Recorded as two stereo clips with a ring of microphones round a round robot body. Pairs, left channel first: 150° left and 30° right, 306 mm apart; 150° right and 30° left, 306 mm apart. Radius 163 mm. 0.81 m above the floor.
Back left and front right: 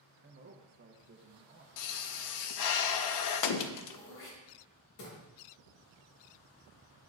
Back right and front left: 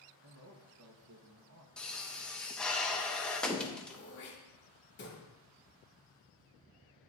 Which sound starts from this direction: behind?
Throat clearing, at 3.9 s.